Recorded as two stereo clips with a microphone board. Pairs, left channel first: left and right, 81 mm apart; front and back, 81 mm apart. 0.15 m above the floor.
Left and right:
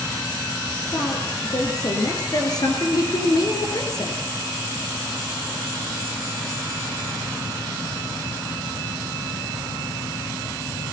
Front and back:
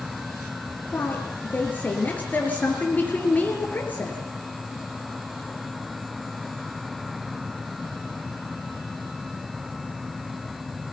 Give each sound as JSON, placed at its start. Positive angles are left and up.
{"t": 0.9, "sound": "a woman speaking", "azimuth_deg": 65, "distance_m": 3.0}